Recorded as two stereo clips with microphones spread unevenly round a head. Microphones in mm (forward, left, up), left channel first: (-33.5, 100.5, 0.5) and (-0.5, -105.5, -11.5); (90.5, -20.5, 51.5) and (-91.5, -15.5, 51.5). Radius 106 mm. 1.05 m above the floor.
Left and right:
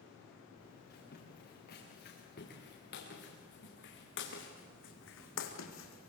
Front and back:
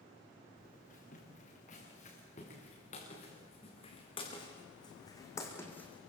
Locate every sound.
0.6 s footsteps: 50° left, 7.5 m; by 6.1 s 85° left, 2.5 m